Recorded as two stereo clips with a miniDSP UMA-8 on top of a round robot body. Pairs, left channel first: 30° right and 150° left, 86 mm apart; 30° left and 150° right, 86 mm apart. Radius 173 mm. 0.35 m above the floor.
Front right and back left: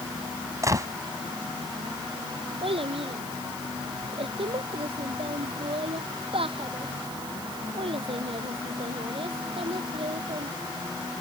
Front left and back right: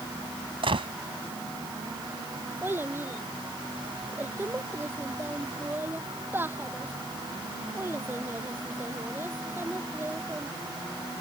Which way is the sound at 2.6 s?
145° left.